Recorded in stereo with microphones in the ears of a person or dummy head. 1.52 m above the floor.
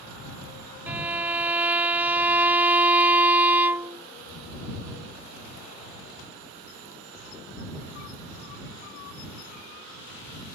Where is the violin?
10° right (ahead or behind).